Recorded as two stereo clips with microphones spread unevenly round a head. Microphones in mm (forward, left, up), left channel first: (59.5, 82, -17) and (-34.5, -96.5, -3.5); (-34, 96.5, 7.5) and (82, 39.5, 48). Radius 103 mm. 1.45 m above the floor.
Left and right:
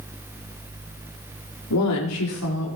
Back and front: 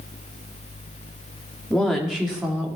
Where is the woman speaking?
65° left, 3 m; by 2.8 s 50° left, 4 m.